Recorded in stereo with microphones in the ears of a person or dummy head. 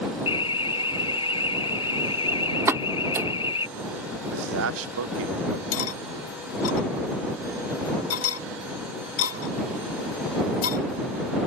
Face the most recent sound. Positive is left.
turn(degrees=70)  # may be behind; listen again after turning